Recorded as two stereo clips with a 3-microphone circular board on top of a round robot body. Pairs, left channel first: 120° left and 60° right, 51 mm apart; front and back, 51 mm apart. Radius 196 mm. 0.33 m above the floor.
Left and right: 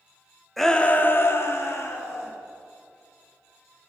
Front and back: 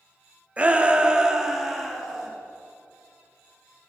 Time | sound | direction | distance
0.6 | a shout | 160° right | 0.9 m